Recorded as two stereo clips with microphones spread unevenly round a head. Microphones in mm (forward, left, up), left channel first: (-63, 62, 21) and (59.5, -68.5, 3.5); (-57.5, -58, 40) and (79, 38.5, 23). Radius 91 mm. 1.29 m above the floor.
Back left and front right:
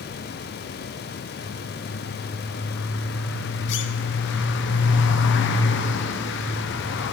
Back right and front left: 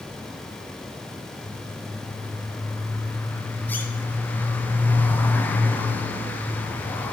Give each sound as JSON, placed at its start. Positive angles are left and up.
{"t": 1.4, "sound": "a bird", "azimuth_deg": 135, "distance_m": 0.6}